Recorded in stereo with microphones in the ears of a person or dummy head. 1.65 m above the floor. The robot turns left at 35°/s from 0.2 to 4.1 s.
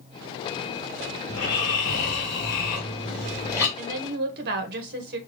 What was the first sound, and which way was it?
Snoring, 100° left.